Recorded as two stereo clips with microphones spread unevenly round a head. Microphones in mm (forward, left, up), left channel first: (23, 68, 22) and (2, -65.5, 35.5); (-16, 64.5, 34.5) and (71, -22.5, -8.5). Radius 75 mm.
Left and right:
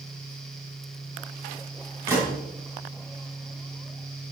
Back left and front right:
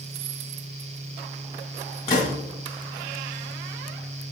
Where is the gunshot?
170° right, 2.5 m.